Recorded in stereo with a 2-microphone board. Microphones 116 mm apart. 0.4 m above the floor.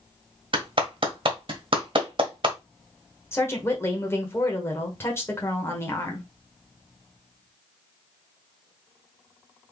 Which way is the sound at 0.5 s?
50° right (ahead or behind).